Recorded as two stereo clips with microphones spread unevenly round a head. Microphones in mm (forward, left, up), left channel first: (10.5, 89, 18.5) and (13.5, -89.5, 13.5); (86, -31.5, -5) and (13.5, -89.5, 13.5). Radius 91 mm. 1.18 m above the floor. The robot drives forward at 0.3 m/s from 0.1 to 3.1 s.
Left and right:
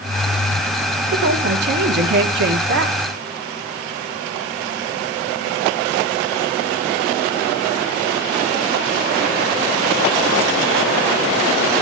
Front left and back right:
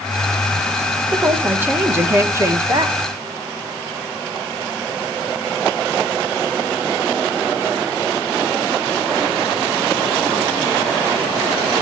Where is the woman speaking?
65° right, 1.5 m; by 3.0 s 85° right, 1.4 m.